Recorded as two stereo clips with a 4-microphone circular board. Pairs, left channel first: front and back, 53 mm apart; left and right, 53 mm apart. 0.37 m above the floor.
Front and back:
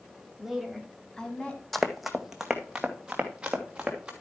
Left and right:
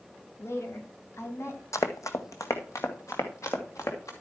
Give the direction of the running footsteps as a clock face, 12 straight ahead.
9 o'clock.